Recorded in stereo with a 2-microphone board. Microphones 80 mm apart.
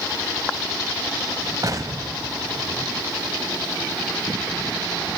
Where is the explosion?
45° right (ahead or behind), 1.8 m.